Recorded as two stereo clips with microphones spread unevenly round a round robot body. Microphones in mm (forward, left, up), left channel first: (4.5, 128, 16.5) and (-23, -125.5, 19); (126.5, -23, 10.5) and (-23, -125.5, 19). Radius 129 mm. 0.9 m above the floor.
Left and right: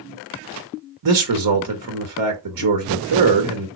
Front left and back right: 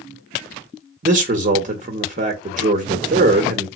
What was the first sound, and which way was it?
A man speaking, 100° right.